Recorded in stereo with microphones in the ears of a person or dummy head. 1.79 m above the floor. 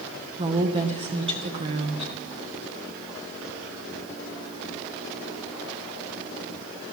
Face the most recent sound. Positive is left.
turn(degrees=-35)  # may be behind; listen again after turning